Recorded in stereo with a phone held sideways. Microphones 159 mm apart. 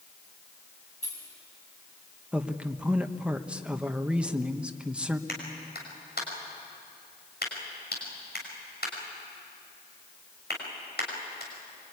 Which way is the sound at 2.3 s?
5° right (ahead or behind).